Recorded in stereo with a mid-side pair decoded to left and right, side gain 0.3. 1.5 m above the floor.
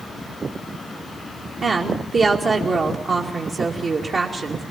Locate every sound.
1.6 s a woman speaking: 65° right, 2.5 m